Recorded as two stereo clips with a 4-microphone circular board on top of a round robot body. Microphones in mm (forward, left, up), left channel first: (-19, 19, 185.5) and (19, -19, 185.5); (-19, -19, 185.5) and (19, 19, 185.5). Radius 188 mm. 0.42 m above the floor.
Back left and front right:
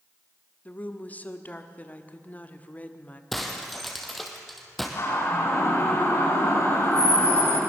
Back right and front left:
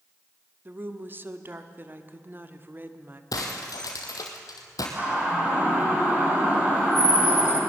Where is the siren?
105° left, 10 m.